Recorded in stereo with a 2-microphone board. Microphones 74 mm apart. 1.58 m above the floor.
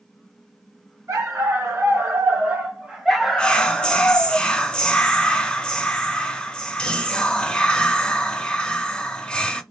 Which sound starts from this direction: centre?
Whispering, at 3.4 s.